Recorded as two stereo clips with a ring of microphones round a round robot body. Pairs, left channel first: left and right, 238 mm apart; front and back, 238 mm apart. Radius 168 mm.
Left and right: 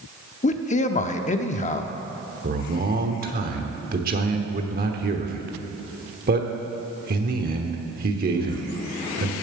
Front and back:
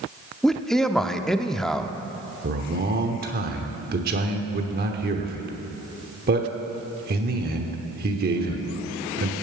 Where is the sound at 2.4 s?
135° right, 1.0 m.